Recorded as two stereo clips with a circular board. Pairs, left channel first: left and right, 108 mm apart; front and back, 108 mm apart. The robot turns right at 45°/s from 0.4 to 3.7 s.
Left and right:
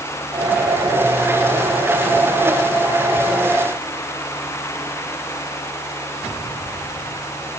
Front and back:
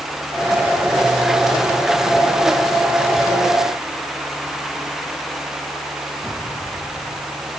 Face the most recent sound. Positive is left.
No sound to turn to.